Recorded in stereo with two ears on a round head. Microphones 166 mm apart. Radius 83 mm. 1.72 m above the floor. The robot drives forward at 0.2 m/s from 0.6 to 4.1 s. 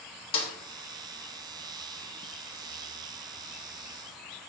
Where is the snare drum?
30° left (ahead or behind), 0.5 m.